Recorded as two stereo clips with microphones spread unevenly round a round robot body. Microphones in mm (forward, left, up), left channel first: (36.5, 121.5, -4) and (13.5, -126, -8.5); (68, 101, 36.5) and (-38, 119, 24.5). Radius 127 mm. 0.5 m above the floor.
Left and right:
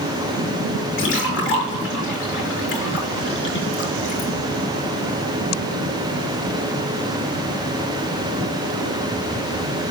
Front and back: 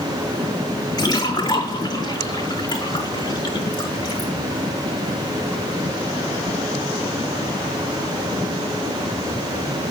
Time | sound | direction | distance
1.0 | a splash | 40° left | 4.5 m